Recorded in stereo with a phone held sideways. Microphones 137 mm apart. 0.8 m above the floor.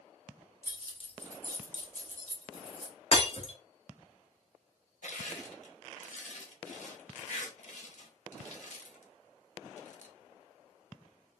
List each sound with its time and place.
0.6 s keys jangling: 25° left (ahead or behind), 1.0 m; by 2.9 s 40° left (ahead or behind), 1.7 m
3.1 s breaking glass: 45° left (ahead or behind), 1.0 m
5.0 s crushing: 65° left (ahead or behind), 0.8 m